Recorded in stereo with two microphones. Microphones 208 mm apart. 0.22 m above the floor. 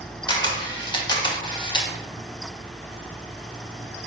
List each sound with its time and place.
0.3 s a camera shutter: 25° left (ahead or behind), 0.5 m